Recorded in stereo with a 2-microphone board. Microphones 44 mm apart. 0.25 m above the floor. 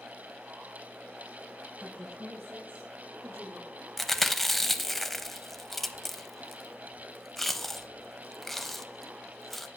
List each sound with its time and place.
1.8 s a woman speaking: 45° right (ahead or behind), 5 m; by 3.7 s 65° right (ahead or behind), 6 m
4.0 s chewing: 5° left (ahead or behind), 0.6 m